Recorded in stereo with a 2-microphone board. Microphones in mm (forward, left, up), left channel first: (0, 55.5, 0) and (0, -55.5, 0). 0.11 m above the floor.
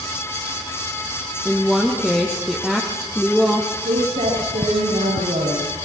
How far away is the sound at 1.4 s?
About 3.5 m.